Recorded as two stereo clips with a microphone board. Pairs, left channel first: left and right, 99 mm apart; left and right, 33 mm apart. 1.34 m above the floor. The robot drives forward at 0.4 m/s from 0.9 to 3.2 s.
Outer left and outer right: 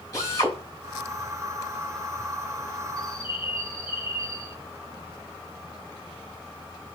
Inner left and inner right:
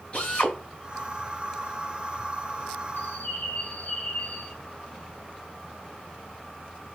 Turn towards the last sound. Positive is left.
turn(degrees=55)  # may be behind; listen again after turning